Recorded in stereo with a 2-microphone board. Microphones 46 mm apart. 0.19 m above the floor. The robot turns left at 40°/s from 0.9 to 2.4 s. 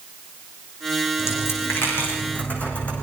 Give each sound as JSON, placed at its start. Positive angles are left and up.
{"t": 1.2, "sound": "a dropped coin", "side_deg": 80, "distance_m": 6.5}